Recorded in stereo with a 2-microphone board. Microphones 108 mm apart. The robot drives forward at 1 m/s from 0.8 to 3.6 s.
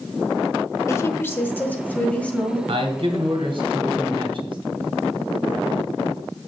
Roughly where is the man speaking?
Right.